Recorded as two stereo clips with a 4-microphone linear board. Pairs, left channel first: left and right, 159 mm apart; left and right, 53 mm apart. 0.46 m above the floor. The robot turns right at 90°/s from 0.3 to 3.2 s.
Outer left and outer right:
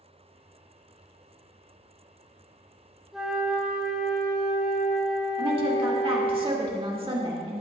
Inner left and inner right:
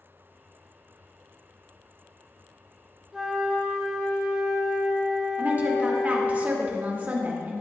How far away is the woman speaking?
About 1.5 m.